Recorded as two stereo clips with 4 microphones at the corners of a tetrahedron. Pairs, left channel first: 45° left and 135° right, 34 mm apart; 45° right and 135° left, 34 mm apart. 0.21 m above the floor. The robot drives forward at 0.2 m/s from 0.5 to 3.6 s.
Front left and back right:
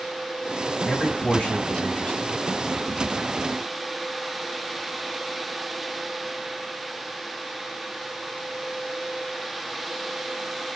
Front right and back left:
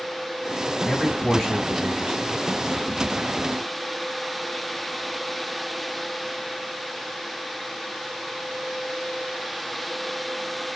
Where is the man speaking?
50° left, 1.8 m; by 2.4 s 70° left, 1.7 m.